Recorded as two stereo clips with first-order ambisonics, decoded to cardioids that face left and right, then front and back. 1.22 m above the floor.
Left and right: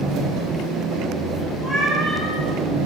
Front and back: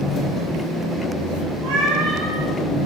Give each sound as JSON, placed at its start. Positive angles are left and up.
{"t": 0.0, "sound": "an engine running", "azimuth_deg": -60, "distance_m": 1.9}
{"t": 1.6, "sound": "a cat meowing", "azimuth_deg": 170, "distance_m": 3.5}